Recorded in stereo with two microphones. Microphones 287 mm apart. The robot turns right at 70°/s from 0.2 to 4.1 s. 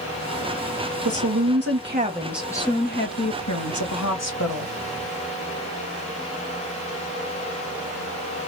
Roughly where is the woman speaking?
Right.